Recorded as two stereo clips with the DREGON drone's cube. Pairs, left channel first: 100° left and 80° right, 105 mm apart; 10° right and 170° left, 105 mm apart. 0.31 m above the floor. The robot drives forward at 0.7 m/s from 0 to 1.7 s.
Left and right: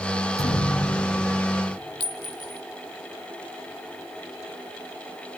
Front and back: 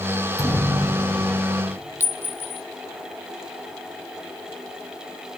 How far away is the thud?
About 5.5 m.